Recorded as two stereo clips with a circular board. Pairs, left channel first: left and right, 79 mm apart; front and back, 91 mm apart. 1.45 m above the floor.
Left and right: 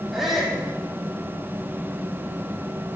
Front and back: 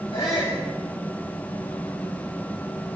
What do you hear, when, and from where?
0.1 s a shout: 5° right, 3.5 m